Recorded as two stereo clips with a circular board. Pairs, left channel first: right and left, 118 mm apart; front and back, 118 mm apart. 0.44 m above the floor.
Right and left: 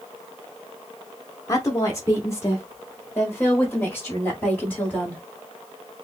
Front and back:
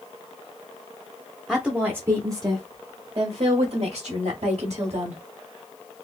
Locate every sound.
1.5 s a woman speaking: 95° right, 0.8 m; by 5.2 s 170° right, 2 m